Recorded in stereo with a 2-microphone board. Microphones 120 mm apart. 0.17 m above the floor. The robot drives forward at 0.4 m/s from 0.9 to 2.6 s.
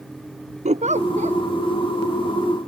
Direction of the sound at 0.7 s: 75° right (ahead or behind).